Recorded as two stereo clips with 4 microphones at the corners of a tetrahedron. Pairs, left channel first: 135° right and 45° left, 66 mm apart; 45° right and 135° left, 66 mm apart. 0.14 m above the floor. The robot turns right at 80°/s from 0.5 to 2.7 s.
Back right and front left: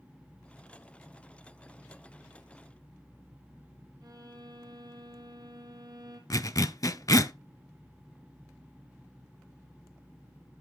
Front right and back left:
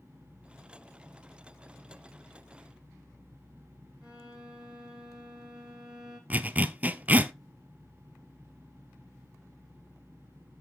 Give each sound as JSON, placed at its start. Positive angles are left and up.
{"t": 4.0, "sound": "a violin", "azimuth_deg": 60, "distance_m": 1.8}
{"t": 6.3, "sound": "a zipper", "azimuth_deg": -160, "distance_m": 0.5}